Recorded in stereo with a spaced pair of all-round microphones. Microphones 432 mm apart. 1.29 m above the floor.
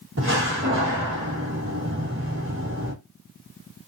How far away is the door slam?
About 1.5 m.